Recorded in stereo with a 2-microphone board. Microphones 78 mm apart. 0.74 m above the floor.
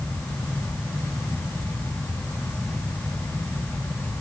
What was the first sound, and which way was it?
Only background noise.